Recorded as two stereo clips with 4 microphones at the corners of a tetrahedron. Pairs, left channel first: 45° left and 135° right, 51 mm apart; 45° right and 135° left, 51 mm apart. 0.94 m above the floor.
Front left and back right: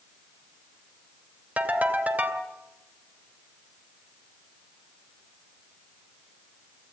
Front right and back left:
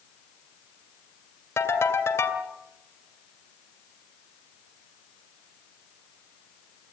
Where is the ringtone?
75° right, 2.5 m.